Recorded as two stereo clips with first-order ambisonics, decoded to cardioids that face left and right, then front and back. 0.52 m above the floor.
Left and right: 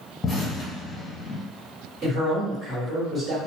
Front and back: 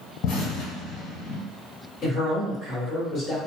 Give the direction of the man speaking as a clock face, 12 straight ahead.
1 o'clock.